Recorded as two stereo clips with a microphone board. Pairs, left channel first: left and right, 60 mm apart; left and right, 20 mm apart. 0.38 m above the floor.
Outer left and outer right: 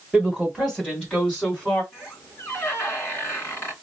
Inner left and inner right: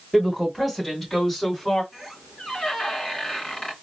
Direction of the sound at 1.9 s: 40° left (ahead or behind).